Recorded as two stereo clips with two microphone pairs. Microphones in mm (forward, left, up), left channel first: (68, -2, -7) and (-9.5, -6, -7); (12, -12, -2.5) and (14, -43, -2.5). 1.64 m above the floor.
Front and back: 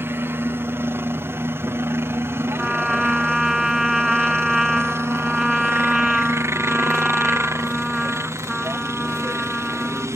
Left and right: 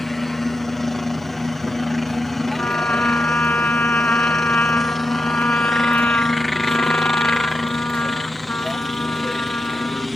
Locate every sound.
0.0 s a helicopter: 170° left; by 10.2 s straight behind
2.6 s a trumpet: 100° left